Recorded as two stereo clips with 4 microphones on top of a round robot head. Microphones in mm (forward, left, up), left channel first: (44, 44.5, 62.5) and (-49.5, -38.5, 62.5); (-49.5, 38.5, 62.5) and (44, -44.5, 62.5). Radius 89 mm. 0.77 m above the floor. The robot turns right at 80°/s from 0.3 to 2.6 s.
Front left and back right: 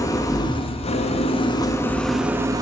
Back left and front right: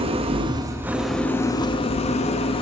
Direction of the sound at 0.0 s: 15° right.